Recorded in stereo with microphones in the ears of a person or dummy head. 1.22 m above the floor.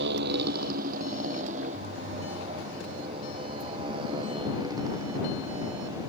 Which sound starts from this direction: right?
A motorcycle, at 0.0 s.